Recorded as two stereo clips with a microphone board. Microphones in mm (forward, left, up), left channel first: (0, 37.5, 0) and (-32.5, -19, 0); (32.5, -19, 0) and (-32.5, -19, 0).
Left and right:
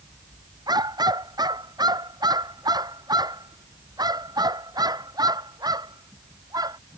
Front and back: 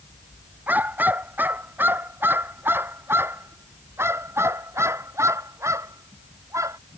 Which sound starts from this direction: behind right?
A dog barking, at 0.7 s.